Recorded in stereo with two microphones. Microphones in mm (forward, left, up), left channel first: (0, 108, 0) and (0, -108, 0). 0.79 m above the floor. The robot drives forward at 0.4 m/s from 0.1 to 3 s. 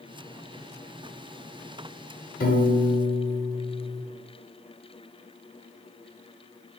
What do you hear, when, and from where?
2.4 s a piano: 45° left (ahead or behind), 0.6 m; by 4.0 s 35° left (ahead or behind), 0.7 m